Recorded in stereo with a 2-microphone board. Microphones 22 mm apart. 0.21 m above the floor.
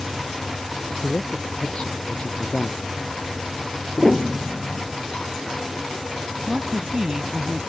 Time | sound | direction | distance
1.0 | a man speaking | 50° left (ahead or behind) | ?
4.0 | a piano | 5° left (ahead or behind) | ?
6.5 | a woman speaking | 30° right (ahead or behind) | ?